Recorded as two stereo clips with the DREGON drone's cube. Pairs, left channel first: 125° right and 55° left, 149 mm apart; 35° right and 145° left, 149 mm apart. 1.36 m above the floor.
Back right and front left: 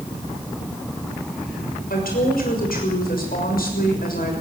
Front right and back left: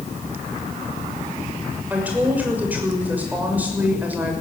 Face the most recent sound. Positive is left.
turn(degrees=-135)